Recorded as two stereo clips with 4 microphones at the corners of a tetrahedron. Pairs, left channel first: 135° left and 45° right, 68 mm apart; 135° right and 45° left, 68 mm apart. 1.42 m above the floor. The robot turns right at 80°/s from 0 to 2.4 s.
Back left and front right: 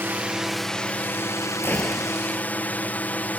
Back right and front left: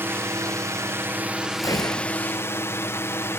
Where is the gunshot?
165° right; by 2.2 s 120° right.